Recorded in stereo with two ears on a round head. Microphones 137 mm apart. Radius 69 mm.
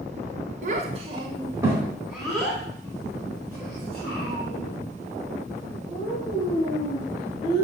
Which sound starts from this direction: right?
A child speaking, at 0.6 s.